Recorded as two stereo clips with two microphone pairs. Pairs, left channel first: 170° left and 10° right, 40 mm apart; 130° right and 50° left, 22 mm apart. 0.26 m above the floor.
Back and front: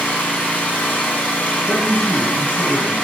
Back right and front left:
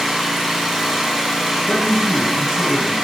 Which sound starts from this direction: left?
A man speaking, at 1.7 s.